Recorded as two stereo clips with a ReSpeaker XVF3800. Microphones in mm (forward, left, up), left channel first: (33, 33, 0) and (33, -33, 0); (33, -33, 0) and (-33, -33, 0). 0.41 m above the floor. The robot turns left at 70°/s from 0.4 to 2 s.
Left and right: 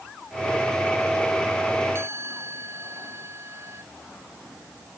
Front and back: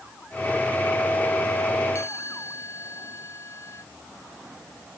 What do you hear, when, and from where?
1.9 s a chime: 40° right; by 3.8 s 45° right